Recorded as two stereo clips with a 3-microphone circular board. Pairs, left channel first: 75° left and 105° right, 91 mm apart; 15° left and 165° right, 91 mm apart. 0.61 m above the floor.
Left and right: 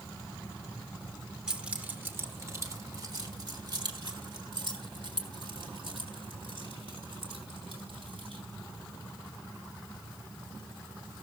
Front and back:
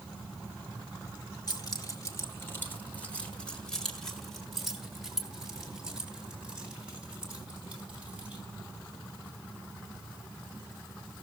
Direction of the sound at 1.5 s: 20° right.